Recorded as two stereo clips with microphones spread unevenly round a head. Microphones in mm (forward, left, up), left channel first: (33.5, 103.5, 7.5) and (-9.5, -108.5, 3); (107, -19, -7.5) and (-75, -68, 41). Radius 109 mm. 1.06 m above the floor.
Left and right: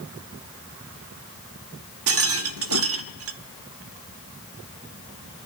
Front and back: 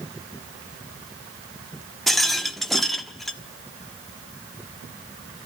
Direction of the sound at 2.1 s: 80° right.